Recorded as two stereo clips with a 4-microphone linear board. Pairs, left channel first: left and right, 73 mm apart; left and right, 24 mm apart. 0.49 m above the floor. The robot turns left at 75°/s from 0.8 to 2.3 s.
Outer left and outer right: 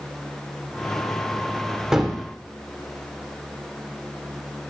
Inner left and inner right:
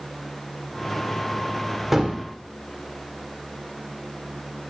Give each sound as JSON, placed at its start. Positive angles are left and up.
{"t": 1.9, "sound": "a gunshot", "side_deg": -10, "distance_m": 1.6}